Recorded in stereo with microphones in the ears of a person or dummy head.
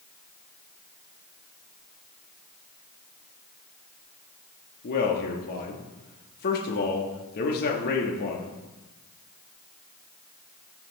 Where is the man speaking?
50° left (ahead or behind), 1.6 m.